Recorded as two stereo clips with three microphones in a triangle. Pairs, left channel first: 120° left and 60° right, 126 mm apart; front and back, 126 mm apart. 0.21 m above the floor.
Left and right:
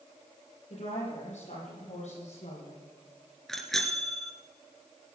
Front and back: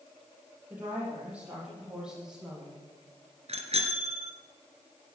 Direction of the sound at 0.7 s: 105° left.